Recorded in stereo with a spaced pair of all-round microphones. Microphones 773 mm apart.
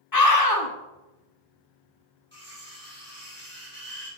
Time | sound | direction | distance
0.1 | a scream | 30° left (ahead or behind) | 0.9 m
2.3 | cutlery clinking | 15° right (ahead or behind) | 3.5 m